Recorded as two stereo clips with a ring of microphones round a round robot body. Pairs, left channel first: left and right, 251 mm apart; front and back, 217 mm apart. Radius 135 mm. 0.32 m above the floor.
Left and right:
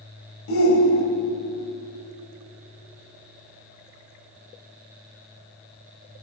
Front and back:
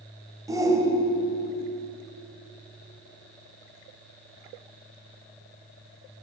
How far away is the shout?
About 1.6 m.